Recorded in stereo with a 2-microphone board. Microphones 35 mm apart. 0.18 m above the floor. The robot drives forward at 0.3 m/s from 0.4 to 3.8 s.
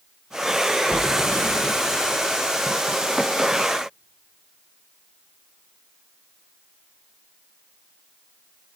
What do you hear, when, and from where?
0.9 s a splash: 55° right (ahead or behind), 0.6 m; by 1.7 s 65° right (ahead or behind), 0.5 m